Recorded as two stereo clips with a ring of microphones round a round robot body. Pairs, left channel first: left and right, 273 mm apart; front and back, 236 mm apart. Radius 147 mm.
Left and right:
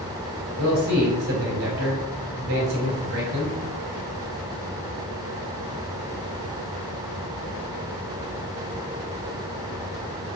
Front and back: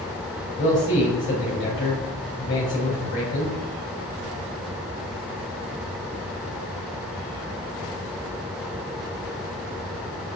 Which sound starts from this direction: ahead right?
A man speaking, at 0.6 s.